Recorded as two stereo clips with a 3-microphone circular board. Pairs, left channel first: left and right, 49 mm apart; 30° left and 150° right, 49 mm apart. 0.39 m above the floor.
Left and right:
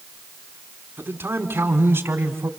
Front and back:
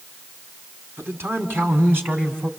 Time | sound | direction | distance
1.0 | a man speaking | 120° right | 3 m